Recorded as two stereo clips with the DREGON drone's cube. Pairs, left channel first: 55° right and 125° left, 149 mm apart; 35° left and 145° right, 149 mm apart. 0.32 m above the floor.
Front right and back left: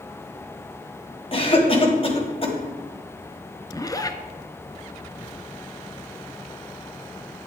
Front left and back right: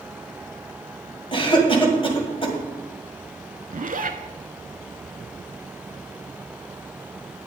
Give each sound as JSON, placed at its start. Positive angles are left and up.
{"t": 1.3, "sound": "a cough", "azimuth_deg": -15, "distance_m": 1.9}
{"t": 3.7, "sound": "a zipper", "azimuth_deg": -120, "distance_m": 0.7}